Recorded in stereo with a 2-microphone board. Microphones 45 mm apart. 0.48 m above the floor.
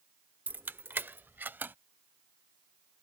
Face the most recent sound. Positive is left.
turn(degrees=-50)  # may be behind; listen again after turning